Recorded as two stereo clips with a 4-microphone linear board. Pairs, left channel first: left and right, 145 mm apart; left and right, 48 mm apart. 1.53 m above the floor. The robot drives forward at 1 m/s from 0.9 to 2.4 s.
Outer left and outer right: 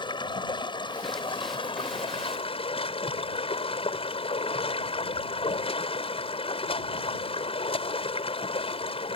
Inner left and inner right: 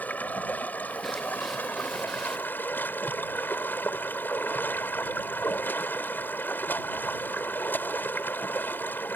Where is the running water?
35° left (ahead or behind); by 9.2 s 40° left (ahead or behind).